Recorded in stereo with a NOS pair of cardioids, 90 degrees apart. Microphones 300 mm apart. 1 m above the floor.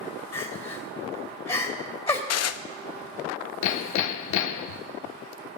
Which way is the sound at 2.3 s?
55° left.